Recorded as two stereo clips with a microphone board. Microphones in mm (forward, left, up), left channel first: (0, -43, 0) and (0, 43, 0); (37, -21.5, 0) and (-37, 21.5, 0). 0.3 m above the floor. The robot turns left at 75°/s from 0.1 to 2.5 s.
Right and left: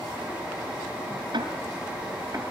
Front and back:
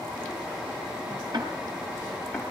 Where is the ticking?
120° left, 5 m; by 2.4 s 40° left, 5 m.